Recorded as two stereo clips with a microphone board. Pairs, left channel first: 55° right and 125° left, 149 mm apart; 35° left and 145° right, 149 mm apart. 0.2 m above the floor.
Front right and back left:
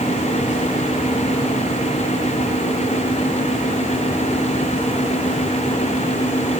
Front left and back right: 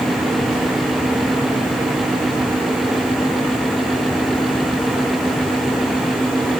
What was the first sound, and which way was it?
Only background noise.